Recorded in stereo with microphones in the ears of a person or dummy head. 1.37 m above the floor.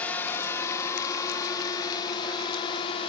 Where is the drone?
15° left (ahead or behind); by 3.1 s 30° left (ahead or behind).